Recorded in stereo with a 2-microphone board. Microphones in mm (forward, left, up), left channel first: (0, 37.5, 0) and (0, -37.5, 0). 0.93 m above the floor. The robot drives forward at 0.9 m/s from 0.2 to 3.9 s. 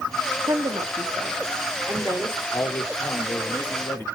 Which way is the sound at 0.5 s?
60° right (ahead or behind).